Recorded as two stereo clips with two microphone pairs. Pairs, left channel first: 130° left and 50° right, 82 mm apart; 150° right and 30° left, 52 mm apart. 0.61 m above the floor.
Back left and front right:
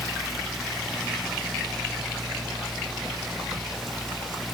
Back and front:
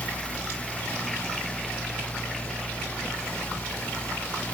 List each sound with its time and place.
Only background noise.